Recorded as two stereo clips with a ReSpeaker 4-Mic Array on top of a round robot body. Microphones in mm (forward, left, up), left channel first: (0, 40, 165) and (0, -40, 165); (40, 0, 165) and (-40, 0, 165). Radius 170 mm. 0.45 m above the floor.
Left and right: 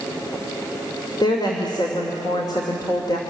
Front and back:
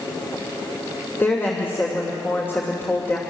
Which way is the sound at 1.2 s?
60° left.